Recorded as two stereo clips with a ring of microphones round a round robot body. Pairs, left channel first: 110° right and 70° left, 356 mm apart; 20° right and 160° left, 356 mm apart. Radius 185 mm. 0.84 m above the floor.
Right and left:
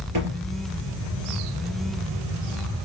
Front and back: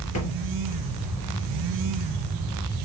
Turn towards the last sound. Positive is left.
turn(degrees=25)